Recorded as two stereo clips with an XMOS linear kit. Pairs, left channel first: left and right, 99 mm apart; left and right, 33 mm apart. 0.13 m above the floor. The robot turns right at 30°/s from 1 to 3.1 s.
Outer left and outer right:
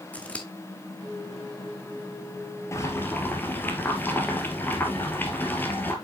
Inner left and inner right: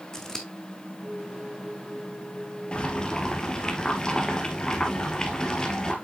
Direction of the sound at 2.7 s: 30° left (ahead or behind).